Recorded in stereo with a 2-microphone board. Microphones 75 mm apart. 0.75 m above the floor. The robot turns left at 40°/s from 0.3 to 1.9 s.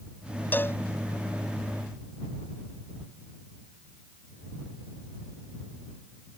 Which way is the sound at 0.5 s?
25° left (ahead or behind).